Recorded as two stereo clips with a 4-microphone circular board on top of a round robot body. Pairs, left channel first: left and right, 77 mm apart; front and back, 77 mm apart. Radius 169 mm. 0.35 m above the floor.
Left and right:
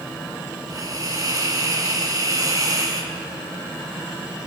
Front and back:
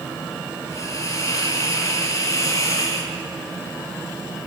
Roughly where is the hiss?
Ahead right.